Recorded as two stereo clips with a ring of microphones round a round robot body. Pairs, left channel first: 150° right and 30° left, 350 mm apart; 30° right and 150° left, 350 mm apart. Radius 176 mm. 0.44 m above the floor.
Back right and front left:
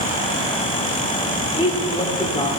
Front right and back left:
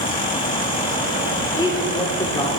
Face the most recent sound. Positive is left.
turn(degrees=-90)